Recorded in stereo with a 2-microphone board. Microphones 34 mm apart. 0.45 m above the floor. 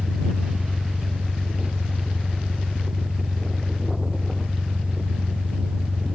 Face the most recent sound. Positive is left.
turn(degrees=-35)  # may be behind; listen again after turning